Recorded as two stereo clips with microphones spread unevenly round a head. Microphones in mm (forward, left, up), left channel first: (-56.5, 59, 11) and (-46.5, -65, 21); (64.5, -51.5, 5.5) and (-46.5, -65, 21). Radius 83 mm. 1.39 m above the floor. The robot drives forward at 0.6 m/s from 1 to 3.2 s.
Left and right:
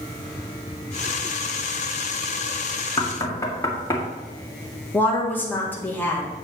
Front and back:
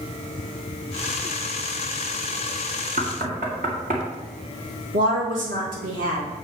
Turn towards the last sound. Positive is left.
turn(degrees=170)